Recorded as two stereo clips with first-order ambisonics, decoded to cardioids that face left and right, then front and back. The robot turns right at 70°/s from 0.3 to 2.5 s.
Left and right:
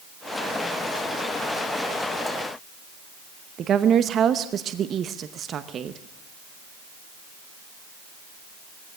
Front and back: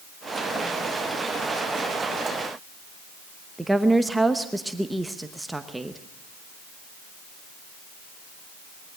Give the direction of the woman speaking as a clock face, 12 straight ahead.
3 o'clock.